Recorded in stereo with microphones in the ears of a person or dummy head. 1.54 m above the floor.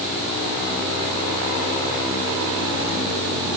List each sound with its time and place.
Only background noise.